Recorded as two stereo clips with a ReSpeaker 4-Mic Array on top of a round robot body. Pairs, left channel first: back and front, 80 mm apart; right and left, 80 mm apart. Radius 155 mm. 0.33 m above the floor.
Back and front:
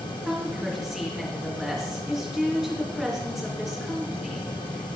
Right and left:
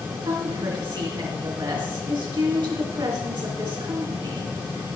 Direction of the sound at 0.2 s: 85° left.